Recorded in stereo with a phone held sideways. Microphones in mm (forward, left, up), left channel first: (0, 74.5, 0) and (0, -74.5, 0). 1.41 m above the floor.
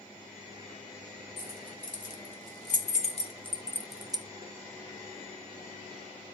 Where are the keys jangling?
60° left (ahead or behind), 3 m; by 4.2 s 35° right (ahead or behind), 0.6 m.